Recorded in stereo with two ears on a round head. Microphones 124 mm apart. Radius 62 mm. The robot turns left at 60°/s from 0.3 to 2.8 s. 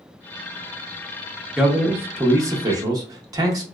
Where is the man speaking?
5° right (ahead or behind), 0.7 m; by 3.6 s 25° right (ahead or behind), 0.7 m.